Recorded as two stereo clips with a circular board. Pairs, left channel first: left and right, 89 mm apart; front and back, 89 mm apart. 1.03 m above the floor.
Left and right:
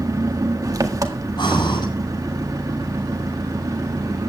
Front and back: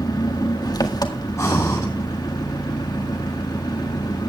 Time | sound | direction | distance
0.0 | an engine running | 40° right | 1.8 m
1.4 | breathing | 55° left | 8.5 m